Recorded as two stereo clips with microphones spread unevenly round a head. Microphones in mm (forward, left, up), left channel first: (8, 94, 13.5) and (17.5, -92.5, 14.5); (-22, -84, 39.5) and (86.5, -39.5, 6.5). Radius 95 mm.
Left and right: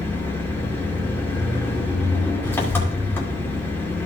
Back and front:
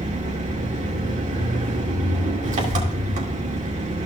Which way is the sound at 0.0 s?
15° left.